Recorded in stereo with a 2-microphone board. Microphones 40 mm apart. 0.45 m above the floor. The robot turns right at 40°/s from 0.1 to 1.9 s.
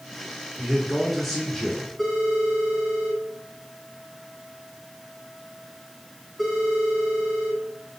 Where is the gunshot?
I don't hear a gunshot.